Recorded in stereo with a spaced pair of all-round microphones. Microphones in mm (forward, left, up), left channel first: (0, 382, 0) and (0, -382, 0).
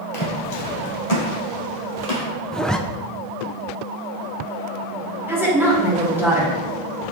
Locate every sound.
0.1 s footsteps: 40° left (ahead or behind), 2 m; by 2.3 s 55° left (ahead or behind), 3 m
2.5 s a zipper: centre (ahead or behind), 0.5 m
5.3 s a woman speaking: 5° right (ahead or behind), 3 m